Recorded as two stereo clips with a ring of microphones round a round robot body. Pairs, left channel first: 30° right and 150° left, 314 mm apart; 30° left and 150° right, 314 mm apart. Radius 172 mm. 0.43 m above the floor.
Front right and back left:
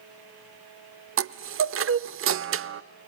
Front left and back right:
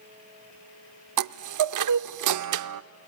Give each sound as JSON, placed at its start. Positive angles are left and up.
{"t": 1.2, "sound": "a chime", "azimuth_deg": -165, "distance_m": 0.6}